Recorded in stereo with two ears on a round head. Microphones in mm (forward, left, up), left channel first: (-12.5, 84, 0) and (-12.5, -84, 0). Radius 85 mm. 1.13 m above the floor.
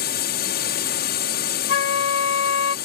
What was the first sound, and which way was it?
A drone, 55° left (ahead or behind).